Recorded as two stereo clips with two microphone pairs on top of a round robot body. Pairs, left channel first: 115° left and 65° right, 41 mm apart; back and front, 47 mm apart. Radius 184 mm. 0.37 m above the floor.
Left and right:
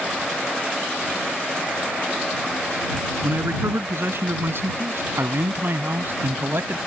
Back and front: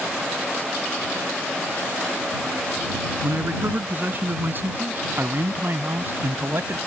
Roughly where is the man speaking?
Ahead right.